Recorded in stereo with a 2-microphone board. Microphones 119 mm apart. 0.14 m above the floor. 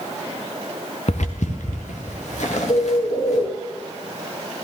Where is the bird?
60° left (ahead or behind), 2.5 m.